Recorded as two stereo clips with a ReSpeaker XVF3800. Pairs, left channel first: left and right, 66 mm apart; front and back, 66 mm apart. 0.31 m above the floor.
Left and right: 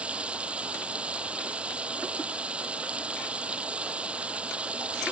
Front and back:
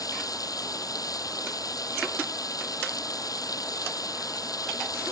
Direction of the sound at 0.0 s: 20° right.